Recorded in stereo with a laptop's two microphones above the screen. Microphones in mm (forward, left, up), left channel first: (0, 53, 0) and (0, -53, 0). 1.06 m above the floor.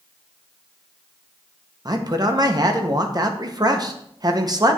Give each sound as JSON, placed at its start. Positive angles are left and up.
{"t": 1.9, "sound": "a man speaking", "side_deg": -40, "distance_m": 0.9}